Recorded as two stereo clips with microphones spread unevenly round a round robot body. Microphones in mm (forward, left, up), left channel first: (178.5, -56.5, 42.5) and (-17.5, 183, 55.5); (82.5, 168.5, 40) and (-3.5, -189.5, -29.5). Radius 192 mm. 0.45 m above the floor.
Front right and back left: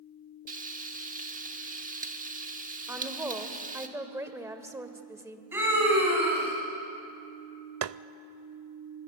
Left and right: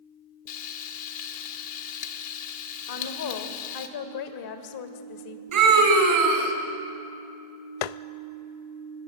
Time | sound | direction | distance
0.5 | frying | 70° left | 1.7 m
2.9 | a woman speaking | 45° left | 2.0 m
5.5 | a scream | 145° right | 4 m
7.8 | tapping | 85° left | 0.6 m